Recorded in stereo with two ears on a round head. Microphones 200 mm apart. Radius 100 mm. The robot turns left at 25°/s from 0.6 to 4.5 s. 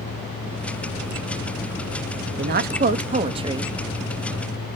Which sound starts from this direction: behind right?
A woman speaking, at 2.4 s.